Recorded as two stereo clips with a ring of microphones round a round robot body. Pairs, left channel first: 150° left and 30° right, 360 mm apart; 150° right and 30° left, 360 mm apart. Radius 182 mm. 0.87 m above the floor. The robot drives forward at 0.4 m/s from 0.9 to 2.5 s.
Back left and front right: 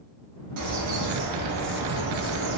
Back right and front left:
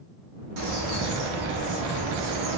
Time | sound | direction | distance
0.6 | a bird | 10° left | 1.5 m